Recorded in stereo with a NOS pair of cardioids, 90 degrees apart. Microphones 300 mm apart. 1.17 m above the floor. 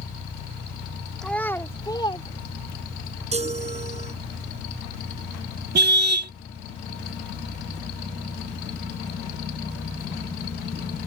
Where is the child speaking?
Straight ahead; by 3.0 s 25° left.